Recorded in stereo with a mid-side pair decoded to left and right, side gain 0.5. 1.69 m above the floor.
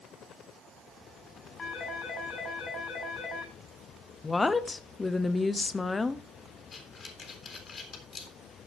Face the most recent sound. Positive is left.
turn(degrees=40)